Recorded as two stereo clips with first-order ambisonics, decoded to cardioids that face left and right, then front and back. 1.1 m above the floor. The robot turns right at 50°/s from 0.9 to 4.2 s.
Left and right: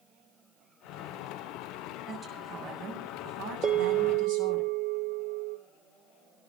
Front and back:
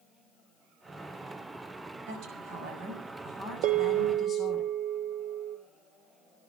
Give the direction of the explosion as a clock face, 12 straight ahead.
I don't hear an explosion.